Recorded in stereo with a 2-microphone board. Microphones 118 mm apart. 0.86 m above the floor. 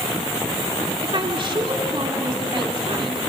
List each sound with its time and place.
1.0 s a woman speaking: 45° right (ahead or behind), 2.5 m